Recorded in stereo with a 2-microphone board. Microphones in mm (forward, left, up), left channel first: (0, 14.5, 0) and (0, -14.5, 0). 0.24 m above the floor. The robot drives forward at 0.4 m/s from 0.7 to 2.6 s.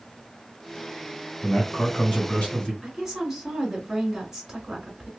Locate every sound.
1.4 s a man speaking: 30° left (ahead or behind), 2.5 m; by 2.7 s 35° left (ahead or behind), 2 m
2.8 s a woman speaking: 10° right (ahead or behind), 1.9 m